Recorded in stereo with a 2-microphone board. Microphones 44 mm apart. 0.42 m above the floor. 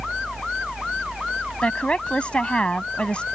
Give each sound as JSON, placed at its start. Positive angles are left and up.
{"t": 1.6, "sound": "a woman speaking", "side_deg": 25}